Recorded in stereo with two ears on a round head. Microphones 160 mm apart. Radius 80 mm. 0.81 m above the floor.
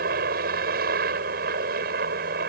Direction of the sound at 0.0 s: 55° right (ahead or behind).